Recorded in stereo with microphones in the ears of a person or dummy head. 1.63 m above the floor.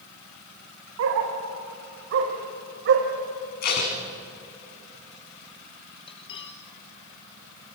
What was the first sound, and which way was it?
A dog barking, 65° right (ahead or behind).